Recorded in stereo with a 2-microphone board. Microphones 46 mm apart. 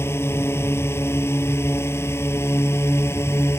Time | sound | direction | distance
0.0 | a drone | 65° left (ahead or behind) | ?